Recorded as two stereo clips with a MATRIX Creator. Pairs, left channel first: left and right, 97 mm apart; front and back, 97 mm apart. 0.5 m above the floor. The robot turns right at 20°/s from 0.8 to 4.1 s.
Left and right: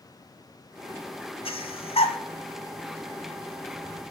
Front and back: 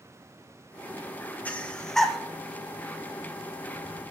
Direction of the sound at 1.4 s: 75° left.